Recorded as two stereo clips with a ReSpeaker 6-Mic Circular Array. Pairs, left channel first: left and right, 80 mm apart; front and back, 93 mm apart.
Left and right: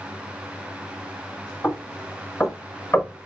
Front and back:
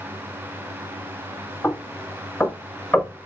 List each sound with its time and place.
1.6 s knocking: 60° left, 0.9 m